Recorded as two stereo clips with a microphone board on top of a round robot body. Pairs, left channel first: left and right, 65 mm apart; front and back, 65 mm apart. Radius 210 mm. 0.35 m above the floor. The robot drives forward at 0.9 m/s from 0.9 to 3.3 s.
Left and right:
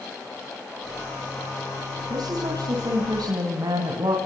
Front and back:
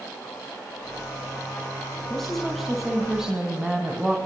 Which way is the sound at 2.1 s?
85° right.